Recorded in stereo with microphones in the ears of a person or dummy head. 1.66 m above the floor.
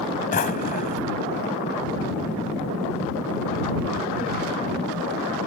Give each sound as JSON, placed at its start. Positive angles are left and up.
{"t": 0.3, "sound": "a drawer", "side_deg": 40}